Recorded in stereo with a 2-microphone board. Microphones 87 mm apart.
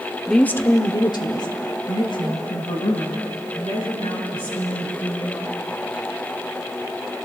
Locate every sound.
0.3 s a woman speaking: centre (ahead or behind), 0.9 m; by 5.6 s 75° left (ahead or behind), 7.5 m